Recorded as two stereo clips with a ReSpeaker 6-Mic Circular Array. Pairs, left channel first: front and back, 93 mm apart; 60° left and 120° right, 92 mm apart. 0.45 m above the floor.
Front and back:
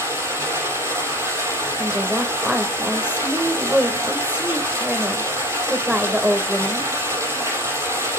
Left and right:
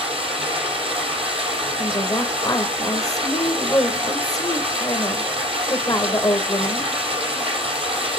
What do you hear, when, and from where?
0.0 s running water: 120° right, 6 m
1.8 s a woman speaking: 105° left, 1.4 m